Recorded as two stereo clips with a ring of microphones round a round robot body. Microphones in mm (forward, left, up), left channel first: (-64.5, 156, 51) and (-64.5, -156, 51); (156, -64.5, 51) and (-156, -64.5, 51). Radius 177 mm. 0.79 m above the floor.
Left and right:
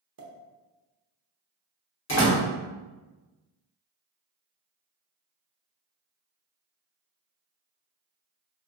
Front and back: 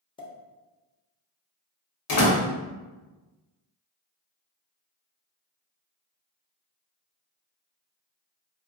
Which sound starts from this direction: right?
A pop, at 0.2 s.